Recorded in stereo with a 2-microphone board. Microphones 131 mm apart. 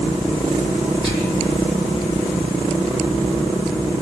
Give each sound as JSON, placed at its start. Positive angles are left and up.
{"t": 1.0, "sound": "whispering", "side_deg": 30, "distance_m": 0.7}